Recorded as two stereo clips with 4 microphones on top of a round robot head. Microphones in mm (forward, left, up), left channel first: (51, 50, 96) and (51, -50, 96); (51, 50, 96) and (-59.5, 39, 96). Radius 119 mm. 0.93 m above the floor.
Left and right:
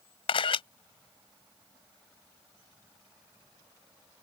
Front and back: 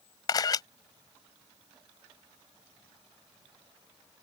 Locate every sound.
0.3 s a camera shutter: 60° left